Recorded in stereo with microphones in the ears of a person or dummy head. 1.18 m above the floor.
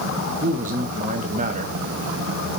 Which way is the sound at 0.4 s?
35° right (ahead or behind).